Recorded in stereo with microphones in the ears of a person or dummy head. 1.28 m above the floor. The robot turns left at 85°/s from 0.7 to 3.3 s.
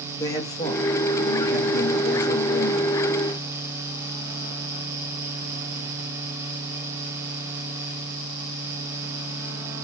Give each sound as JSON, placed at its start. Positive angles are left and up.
{"t": 0.2, "sound": "a man speaking", "azimuth_deg": 160, "distance_m": 0.6}